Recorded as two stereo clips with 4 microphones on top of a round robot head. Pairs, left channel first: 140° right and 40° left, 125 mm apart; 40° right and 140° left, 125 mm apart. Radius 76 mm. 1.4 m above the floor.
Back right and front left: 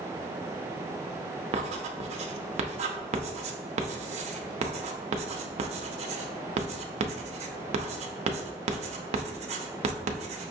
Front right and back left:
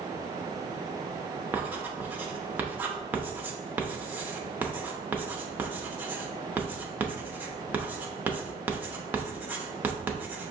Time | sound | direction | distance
1.5 | writing | 65° left | 0.6 m